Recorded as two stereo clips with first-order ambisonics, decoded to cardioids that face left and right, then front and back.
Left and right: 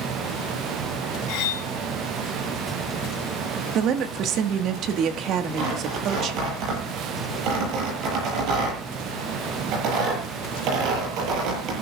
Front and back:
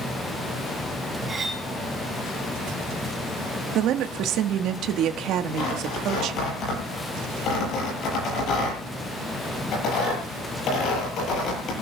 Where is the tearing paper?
50° right, 9 m.